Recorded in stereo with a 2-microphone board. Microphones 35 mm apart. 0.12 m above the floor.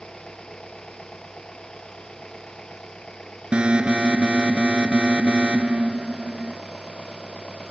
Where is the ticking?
No ticking in this recording.